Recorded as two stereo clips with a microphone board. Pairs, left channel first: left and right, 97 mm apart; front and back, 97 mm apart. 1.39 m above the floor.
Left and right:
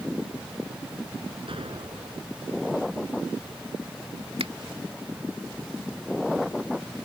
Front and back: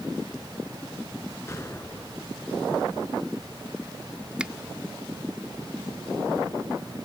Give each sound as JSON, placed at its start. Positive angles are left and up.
{"t": 1.5, "sound": "an explosion", "azimuth_deg": -60}
{"t": 4.4, "sound": "a finger snap", "azimuth_deg": -100}